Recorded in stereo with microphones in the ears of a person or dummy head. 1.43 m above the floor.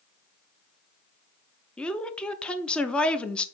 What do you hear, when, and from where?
1.8 s a woman speaking: centre (ahead or behind), 0.6 m